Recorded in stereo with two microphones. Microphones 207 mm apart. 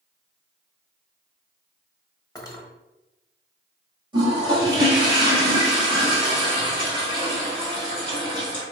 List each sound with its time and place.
2.4 s cutlery clinking: 20° left (ahead or behind), 1.0 m
4.1 s a toilet flushing: 25° right (ahead or behind), 1.8 m